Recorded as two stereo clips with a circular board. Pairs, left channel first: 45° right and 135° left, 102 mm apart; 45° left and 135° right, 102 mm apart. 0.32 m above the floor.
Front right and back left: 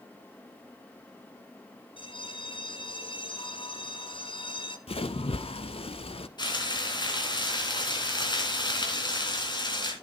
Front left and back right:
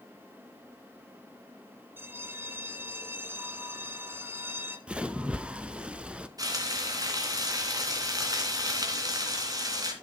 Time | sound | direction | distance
2.0 | a bell | 70° right | 1.3 m
4.9 | a splash | 55° right | 0.6 m
6.4 | frying | 85° right | 2.5 m